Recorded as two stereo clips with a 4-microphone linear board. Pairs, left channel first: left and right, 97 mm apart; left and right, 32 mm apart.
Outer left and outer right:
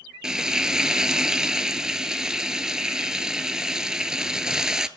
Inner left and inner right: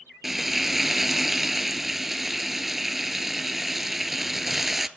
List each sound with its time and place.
0.2 s frying: 10° right (ahead or behind), 0.6 m